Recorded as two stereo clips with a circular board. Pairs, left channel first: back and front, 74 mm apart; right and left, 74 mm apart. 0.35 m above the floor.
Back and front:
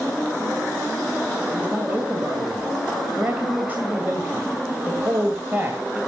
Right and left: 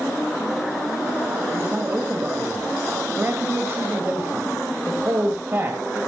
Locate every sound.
1.5 s a man speaking: 55° left, 2 m